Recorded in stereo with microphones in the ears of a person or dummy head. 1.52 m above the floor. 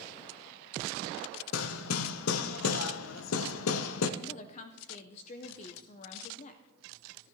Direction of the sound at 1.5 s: 85° left.